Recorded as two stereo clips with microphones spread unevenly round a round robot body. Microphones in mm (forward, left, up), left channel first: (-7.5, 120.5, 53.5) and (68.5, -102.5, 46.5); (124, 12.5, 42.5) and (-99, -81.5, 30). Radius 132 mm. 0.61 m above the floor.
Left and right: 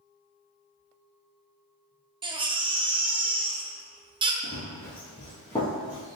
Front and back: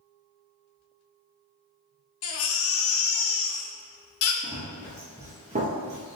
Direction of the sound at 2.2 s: 5° right.